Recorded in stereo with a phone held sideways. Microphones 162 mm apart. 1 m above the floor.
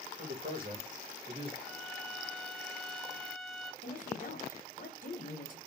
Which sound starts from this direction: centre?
A violin, at 1.6 s.